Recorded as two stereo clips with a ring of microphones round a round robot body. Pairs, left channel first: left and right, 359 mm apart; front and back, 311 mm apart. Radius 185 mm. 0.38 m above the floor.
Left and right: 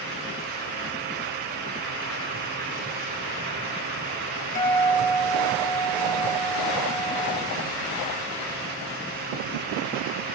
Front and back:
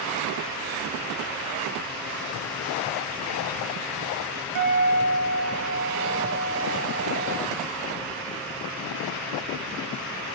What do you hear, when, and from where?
4.5 s a guitar: 160° left, 1.9 m